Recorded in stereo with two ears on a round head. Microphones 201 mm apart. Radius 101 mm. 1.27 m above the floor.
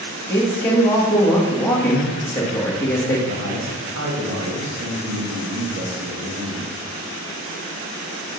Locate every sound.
0.3 s a man speaking: 10° left (ahead or behind), 1.4 m
3.3 s a man speaking: 65° right (ahead or behind), 2 m